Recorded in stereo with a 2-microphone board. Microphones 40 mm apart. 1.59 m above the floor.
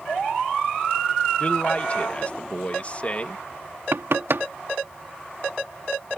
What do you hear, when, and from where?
1.4 s a man speaking: 30° left (ahead or behind)
3.9 s knocking: 70° right (ahead or behind)